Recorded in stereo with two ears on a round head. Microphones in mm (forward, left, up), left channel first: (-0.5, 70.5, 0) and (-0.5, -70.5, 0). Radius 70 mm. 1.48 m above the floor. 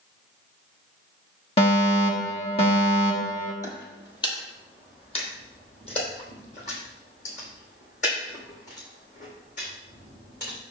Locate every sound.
1.6 s a fire alarm: 40° left (ahead or behind), 1.6 m
3.6 s footsteps: 25° left (ahead or behind), 1.8 m; by 10.6 s 55° left (ahead or behind), 5.5 m